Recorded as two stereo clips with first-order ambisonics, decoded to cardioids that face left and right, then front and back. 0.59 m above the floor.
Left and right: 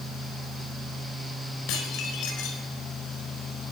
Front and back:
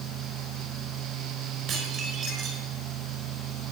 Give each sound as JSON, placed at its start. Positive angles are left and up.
{"t": 1.7, "sound": "dishes clattering", "azimuth_deg": 120, "distance_m": 5.0}